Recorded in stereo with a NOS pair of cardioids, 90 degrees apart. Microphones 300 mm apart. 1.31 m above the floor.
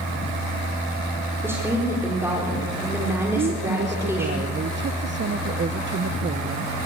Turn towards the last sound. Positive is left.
turn(degrees=-40)